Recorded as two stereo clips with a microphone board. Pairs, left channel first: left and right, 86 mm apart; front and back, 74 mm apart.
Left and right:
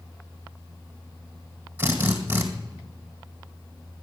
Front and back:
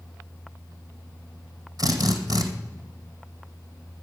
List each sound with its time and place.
1.8 s a drill: 155° right, 2 m